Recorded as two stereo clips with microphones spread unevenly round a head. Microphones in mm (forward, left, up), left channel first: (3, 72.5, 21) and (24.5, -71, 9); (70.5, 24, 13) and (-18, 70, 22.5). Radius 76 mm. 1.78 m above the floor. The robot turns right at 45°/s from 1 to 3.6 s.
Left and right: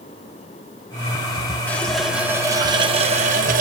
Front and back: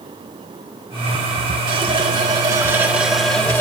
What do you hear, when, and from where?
1.7 s a running tap: 170° left, 1.1 m; by 3.6 s 100° right, 1.1 m